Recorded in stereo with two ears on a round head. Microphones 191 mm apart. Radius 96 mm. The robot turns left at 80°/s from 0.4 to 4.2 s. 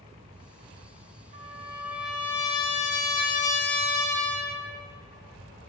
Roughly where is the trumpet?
Behind right.